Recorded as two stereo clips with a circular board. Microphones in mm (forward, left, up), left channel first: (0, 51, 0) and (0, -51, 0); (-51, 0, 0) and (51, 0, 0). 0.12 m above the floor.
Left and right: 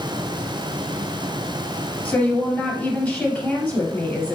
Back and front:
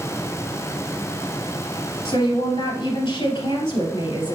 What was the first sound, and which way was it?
A woman speaking, 165° left.